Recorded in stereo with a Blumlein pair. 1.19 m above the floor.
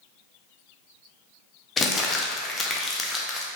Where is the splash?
I don't hear a splash.